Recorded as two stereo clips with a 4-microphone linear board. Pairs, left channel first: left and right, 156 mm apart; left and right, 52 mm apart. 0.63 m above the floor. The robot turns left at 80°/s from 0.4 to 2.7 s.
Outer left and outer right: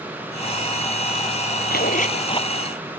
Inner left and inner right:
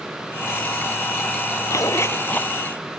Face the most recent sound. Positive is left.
turn(degrees=5)